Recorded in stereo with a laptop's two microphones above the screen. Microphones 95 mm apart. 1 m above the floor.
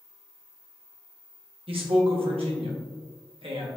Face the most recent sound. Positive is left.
turn(degrees=-75)  # may be behind; listen again after turning